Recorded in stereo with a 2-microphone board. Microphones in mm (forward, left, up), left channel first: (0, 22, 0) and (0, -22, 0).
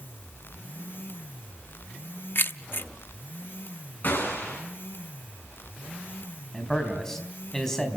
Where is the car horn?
No car horn in this recording.